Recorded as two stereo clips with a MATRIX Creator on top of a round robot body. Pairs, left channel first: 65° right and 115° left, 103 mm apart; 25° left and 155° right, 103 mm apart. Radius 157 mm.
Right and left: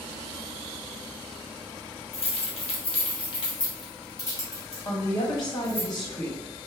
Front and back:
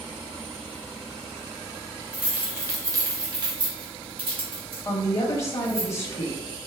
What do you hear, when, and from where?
2.1 s keys jangling: 80° right, 1.0 m; by 5.8 s 135° right, 2 m
4.8 s a woman speaking: 25° right, 1.3 m